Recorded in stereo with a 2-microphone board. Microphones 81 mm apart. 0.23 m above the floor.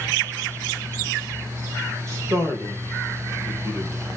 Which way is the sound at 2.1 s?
35° right (ahead or behind).